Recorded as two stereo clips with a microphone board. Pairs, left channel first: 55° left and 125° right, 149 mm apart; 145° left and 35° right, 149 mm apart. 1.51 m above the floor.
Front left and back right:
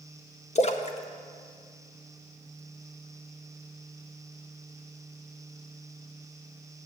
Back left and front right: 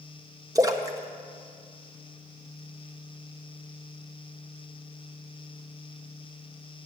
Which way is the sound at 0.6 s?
25° left.